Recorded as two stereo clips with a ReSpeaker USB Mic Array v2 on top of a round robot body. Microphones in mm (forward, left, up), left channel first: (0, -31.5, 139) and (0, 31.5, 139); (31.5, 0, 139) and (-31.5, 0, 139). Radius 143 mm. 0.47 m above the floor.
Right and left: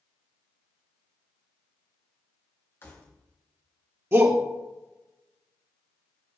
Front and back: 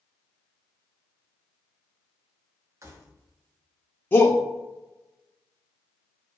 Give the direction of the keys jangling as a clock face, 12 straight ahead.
5 o'clock.